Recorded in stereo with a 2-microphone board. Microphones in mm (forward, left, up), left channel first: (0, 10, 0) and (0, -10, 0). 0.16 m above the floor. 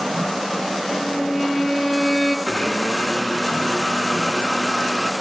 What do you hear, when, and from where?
0.9 s a violin: 5° right (ahead or behind), 2.5 m
2.5 s a blender: 35° left (ahead or behind), 1.8 m